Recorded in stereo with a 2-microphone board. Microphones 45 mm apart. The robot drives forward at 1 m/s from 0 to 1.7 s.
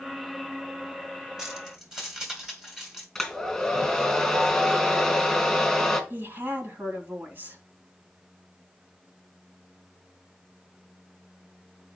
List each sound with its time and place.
1.4 s keys jangling: 10° right (ahead or behind), 1.8 m
3.1 s a hair dryer: 5° left (ahead or behind), 3 m
6.1 s a woman speaking: 55° right (ahead or behind), 2.5 m